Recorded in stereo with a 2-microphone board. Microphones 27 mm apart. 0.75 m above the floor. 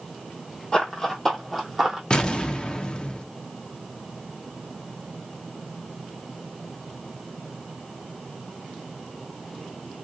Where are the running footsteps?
30° left (ahead or behind), 1.2 m; by 2.0 s 15° right (ahead or behind), 1.3 m.